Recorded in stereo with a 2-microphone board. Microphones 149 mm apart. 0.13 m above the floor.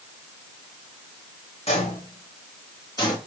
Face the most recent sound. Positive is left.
turn(degrees=25)  # may be behind; listen again after turning